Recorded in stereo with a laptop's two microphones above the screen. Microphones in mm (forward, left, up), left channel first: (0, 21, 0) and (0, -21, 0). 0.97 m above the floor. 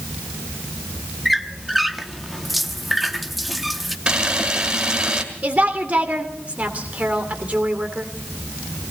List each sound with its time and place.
1.2 s a squeak: centre (ahead or behind), 0.8 m
4.1 s a camera shutter: 30° right (ahead or behind), 1.8 m
5.4 s a woman speaking: 30° right (ahead or behind), 3 m